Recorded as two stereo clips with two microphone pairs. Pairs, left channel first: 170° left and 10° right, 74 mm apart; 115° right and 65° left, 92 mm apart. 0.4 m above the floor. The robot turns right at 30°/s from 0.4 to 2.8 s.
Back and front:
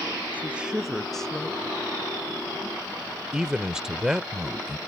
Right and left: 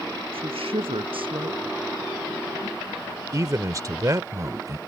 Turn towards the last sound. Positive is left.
turn(degrees=65)